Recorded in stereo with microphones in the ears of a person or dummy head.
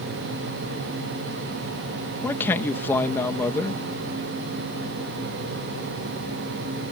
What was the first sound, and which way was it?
A man speaking, 20° left (ahead or behind).